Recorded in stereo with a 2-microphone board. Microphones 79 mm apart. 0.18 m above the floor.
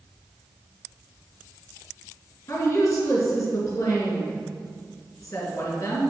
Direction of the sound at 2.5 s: 45° left (ahead or behind).